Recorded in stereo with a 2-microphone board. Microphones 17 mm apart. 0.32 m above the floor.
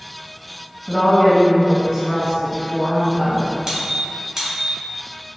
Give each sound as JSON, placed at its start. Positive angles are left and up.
{"t": 0.9, "sound": "a woman speaking", "side_deg": 25, "distance_m": 1.6}
{"t": 3.7, "sound": "a squeak", "side_deg": -30, "distance_m": 1.5}